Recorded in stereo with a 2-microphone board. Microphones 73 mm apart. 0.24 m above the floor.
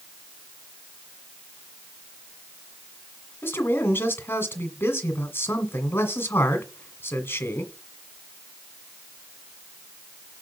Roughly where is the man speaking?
Left.